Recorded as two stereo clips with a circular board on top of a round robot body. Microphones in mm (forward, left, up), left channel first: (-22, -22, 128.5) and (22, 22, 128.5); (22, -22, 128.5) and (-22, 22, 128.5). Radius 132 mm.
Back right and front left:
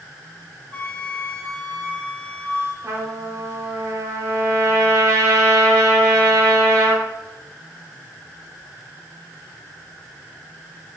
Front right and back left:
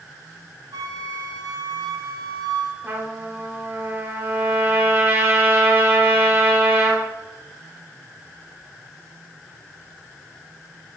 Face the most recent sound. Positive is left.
turn(degrees=75)